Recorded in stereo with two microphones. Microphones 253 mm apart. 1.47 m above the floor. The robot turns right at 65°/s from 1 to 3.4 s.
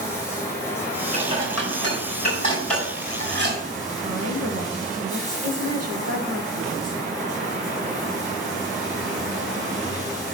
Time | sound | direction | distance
0.0 | running water | 10° left | 6.5 m
1.1 | dishes clattering | 70° left (ahead or behind) | 5 m
4.0 | a woman speaking | 65° right (ahead or behind) | 1.8 m